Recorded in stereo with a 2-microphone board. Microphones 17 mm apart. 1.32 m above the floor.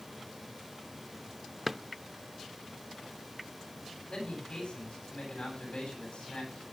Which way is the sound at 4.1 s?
60° left (ahead or behind).